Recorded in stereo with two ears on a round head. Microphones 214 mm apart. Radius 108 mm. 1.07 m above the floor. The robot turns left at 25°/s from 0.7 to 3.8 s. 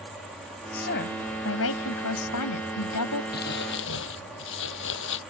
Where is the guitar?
No guitar in this recording.